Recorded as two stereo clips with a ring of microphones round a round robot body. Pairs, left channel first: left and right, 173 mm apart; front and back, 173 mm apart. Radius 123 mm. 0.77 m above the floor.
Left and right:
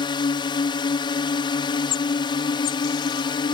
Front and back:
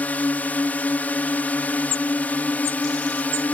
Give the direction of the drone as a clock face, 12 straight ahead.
10 o'clock.